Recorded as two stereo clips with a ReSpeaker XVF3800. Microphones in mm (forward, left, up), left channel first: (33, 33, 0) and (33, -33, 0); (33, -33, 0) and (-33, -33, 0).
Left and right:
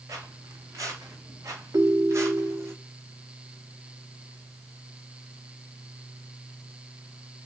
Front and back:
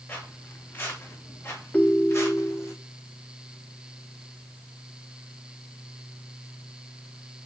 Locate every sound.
0.1 s footsteps: 55° right, 4 m; by 2.7 s 40° right, 3 m
1.7 s a ringtone: 70° right, 1.0 m